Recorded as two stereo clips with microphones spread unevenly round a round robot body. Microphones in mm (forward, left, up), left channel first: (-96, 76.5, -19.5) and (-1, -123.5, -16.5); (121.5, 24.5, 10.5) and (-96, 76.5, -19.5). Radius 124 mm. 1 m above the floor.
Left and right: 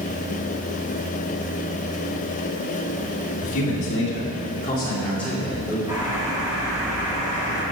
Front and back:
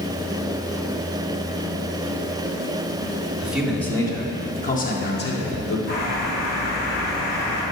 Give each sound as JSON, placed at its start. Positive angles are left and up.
{"t": 3.4, "sound": "a man speaking", "azimuth_deg": 80, "distance_m": 2.5}
{"t": 5.9, "sound": "a bird", "azimuth_deg": 15, "distance_m": 4.5}